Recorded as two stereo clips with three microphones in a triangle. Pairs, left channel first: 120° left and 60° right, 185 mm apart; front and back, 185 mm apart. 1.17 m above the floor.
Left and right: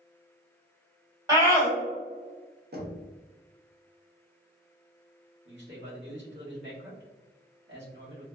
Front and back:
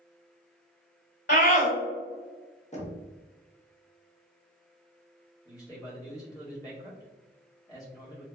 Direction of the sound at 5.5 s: 70° right.